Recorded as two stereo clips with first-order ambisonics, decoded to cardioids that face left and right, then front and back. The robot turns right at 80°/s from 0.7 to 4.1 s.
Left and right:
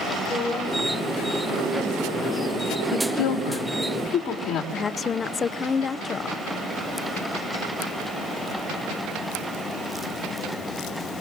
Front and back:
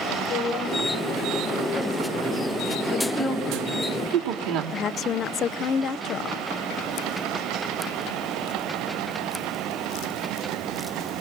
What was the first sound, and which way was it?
A woman speaking, 5° left.